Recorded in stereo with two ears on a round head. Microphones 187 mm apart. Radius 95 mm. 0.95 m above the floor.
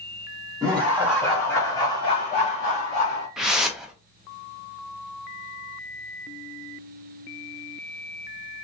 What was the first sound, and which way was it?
Laughter, 15° right (ahead or behind).